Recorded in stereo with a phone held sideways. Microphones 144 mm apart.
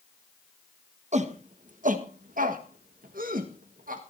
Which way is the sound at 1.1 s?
55° right (ahead or behind).